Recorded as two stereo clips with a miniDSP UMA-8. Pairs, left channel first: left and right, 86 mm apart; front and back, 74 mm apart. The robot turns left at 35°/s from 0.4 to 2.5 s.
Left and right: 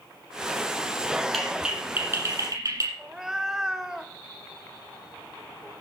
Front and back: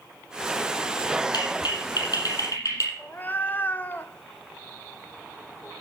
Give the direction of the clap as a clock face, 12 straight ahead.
12 o'clock.